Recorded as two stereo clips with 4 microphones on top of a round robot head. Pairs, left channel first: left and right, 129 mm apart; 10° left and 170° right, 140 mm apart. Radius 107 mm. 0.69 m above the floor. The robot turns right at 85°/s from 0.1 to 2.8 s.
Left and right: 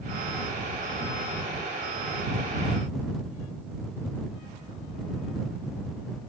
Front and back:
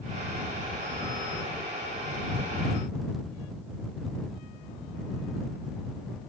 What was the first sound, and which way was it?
Only background noise.